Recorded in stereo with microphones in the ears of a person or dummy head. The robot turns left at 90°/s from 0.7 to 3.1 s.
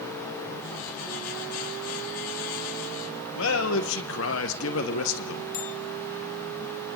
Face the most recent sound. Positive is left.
turn(degrees=45)  # may be behind; listen again after turning